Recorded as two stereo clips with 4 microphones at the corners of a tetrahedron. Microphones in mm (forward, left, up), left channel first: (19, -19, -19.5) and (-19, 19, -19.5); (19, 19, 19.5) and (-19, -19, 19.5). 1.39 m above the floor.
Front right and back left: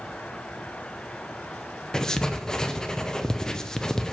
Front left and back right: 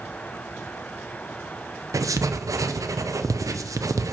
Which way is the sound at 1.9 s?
120° right.